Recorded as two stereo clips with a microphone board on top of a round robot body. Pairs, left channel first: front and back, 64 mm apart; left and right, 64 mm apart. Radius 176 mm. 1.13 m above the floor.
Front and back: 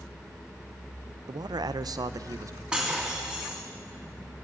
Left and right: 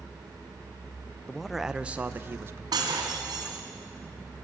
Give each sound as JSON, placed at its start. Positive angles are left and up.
{"t": 1.3, "sound": "a man speaking", "azimuth_deg": 170, "distance_m": 0.5}
{"t": 2.7, "sound": "breaking glass", "azimuth_deg": -105, "distance_m": 3.0}